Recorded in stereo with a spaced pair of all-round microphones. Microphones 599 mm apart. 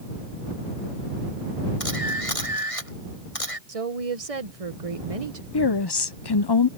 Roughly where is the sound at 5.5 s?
Left.